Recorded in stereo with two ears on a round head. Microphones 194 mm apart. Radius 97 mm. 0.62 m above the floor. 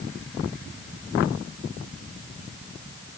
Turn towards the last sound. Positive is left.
No sound to turn to.